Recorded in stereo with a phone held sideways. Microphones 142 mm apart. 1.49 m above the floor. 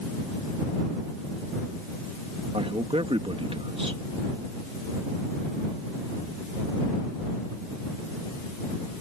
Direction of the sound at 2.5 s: 45° right (ahead or behind).